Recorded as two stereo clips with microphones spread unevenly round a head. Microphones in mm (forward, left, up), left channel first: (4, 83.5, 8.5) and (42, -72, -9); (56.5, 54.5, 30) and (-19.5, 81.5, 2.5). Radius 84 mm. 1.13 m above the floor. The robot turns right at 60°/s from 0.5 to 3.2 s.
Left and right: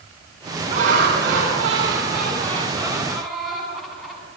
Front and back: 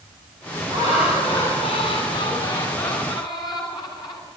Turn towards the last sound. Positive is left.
turn(degrees=15)